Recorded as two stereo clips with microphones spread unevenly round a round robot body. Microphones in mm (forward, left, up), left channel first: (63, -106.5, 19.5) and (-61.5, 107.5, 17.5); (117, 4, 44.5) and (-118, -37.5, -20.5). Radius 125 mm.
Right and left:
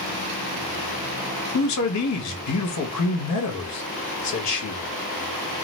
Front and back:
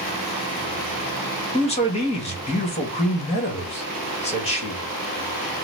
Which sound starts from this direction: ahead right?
A man speaking, at 1.5 s.